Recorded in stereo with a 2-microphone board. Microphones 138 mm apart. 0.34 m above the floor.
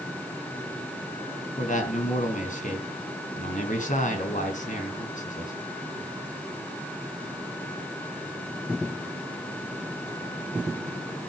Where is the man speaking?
70° left (ahead or behind), 3.5 m.